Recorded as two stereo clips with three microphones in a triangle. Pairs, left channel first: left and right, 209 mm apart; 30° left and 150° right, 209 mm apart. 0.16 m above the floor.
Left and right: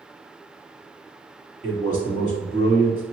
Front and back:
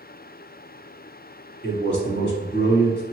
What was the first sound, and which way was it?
A man speaking, 25° left.